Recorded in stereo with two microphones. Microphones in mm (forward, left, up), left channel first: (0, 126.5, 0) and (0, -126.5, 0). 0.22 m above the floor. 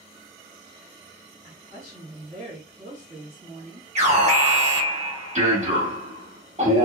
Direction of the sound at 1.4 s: 25° right (ahead or behind).